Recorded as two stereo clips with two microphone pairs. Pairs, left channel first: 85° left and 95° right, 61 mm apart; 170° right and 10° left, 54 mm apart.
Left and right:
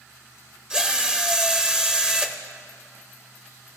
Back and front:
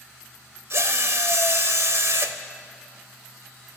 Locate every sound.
0.7 s a drill: 15° right, 0.5 m